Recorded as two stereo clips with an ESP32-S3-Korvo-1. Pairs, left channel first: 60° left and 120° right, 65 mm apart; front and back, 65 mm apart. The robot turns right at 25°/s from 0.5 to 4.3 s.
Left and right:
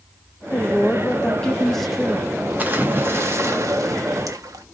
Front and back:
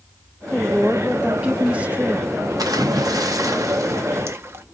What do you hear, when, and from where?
0.5 s a woman speaking: 105° left, 0.8 m; by 2.3 s 150° left, 0.8 m
2.6 s a splash: straight behind, 0.9 m; by 4.7 s 135° right, 0.9 m